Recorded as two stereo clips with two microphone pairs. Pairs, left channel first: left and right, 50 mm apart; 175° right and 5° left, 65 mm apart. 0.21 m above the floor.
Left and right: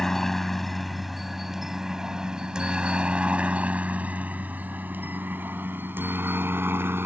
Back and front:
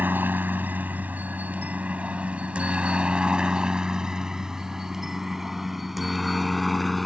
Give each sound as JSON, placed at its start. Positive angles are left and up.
{"t": 0.0, "sound": "a helicopter", "azimuth_deg": 15}